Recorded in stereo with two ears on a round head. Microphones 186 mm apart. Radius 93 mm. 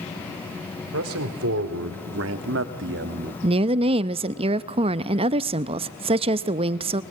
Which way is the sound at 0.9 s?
80° right.